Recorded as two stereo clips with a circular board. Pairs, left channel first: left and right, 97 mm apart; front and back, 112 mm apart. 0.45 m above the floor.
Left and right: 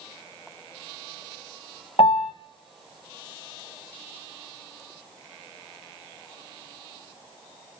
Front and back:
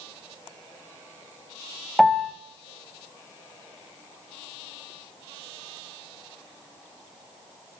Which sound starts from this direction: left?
A piano, at 2.0 s.